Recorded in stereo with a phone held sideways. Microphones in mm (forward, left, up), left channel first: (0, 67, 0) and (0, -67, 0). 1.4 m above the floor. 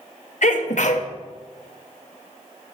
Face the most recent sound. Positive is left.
turn(degrees=65)  # may be behind; listen again after turning